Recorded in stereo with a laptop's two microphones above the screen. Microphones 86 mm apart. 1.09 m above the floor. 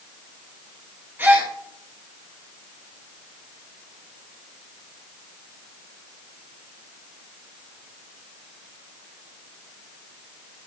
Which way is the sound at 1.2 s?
25° right (ahead or behind).